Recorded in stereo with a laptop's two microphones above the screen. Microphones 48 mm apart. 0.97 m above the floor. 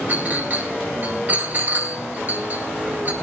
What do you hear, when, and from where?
0.1 s a clink: 45° right (ahead or behind), 3.5 m